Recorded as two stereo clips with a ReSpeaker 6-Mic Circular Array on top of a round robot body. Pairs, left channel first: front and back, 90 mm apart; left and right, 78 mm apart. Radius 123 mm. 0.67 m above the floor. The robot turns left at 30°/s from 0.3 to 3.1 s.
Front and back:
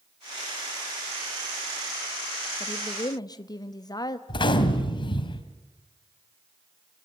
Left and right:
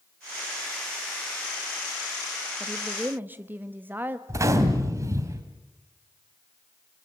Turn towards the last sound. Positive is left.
turn(degrees=-35)